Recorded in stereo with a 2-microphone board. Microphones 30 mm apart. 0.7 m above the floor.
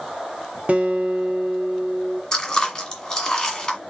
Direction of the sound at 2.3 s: 20° left (ahead or behind).